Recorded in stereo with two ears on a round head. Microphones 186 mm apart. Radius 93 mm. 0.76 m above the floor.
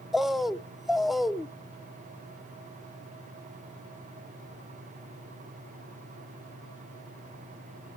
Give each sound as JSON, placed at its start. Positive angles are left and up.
{"t": 0.1, "sound": "a bird", "side_deg": 0, "distance_m": 0.5}